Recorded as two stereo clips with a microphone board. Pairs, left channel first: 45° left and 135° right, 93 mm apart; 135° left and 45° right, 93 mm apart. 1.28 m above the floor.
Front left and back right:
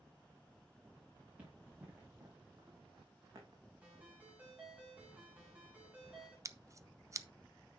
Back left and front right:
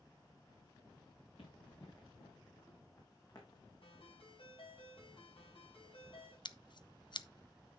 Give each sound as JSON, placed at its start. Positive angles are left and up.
{"t": 1.4, "sound": "running footsteps", "azimuth_deg": 150, "distance_m": 6.0}
{"t": 3.8, "sound": "a ringtone", "azimuth_deg": 150, "distance_m": 6.0}
{"t": 6.5, "sound": "scissors", "azimuth_deg": 170, "distance_m": 0.5}